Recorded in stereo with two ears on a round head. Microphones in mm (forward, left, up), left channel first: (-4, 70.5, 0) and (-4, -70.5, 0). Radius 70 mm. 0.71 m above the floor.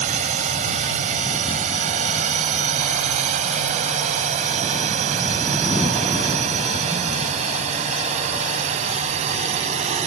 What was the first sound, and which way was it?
A drone, 50° right (ahead or behind).